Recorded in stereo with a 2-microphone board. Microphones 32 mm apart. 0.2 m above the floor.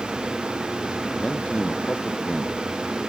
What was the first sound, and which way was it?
A man speaking, 30° left (ahead or behind).